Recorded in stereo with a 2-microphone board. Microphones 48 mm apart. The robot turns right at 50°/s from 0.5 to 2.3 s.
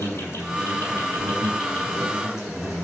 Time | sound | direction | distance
0.0 | an insect | 100° left | 8 m